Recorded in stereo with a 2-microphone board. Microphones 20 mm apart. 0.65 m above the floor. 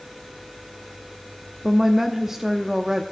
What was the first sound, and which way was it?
A woman speaking, 20° right (ahead or behind).